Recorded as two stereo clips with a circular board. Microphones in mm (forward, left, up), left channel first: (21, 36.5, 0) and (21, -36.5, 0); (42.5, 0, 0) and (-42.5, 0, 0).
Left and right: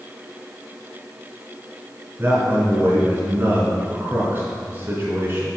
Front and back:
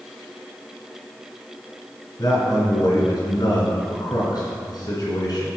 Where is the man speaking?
35° right, 3.5 m.